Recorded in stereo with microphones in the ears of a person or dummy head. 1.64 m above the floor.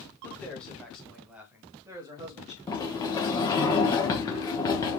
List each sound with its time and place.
0.2 s a man speaking: 10° left (ahead or behind), 1.9 m; by 2.6 s 30° right (ahead or behind), 1.4 m
2.7 s a sliding door: 15° left (ahead or behind), 1.0 m